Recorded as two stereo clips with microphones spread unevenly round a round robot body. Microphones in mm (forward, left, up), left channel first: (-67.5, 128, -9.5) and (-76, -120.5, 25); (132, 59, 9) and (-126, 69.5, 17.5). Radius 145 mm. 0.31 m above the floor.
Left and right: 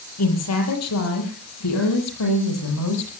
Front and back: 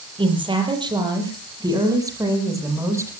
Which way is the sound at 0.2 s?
105° left.